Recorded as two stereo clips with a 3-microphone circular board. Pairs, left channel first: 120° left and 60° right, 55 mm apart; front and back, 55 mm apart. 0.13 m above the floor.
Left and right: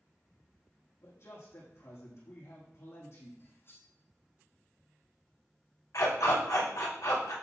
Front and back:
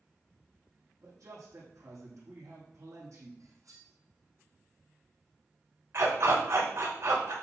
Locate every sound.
1.0 s a man speaking: 155° left, 6.5 m
3.4 s cutlery clinking: 165° left, 3 m
5.9 s a dog barking: 145° left, 6.5 m